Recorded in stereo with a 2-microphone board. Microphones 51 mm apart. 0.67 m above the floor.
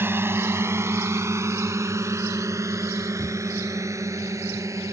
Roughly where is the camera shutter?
Right.